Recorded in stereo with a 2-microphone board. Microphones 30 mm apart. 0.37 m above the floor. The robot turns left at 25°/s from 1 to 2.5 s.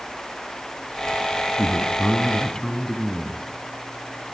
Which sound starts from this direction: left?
A man speaking, at 1.6 s.